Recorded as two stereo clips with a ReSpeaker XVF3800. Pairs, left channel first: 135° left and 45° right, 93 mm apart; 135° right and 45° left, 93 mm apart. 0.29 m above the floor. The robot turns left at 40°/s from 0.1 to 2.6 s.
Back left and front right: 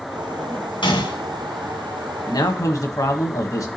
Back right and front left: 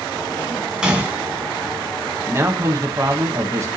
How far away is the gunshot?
About 1.9 m.